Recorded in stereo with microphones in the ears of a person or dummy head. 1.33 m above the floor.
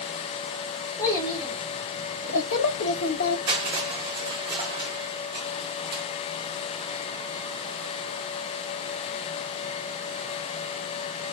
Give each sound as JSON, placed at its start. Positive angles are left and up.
{"t": 1.0, "sound": "a child speaking", "side_deg": 15, "distance_m": 2.0}
{"t": 3.5, "sound": "crushing", "side_deg": -30, "distance_m": 1.7}